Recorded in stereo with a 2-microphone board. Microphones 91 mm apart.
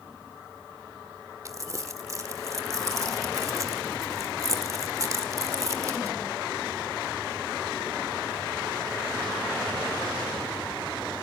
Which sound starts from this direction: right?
Crumpling, at 1.4 s.